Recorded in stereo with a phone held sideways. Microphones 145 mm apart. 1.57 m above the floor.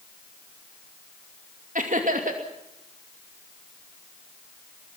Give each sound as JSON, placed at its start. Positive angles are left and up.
{"t": 1.8, "sound": "laughter", "side_deg": -65, "distance_m": 2.5}